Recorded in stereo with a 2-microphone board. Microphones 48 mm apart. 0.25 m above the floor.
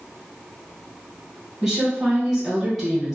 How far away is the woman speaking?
About 1.8 m.